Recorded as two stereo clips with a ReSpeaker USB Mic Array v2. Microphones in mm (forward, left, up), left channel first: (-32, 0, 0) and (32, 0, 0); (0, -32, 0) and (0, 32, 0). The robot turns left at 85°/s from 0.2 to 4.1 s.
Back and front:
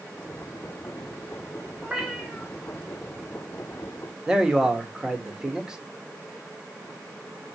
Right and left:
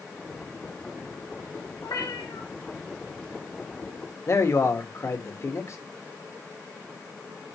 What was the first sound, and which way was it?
A cat meowing, 65° right.